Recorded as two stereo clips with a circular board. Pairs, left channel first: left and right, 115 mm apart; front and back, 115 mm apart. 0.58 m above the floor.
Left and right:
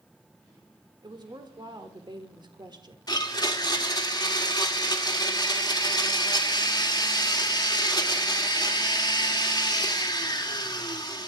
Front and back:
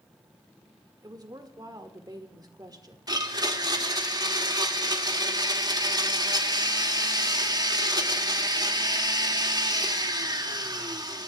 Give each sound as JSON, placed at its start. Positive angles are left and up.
{"t": 1.0, "sound": "a woman speaking", "azimuth_deg": -130, "distance_m": 1.6}
{"t": 3.1, "sound": "a blender", "azimuth_deg": 135, "distance_m": 1.6}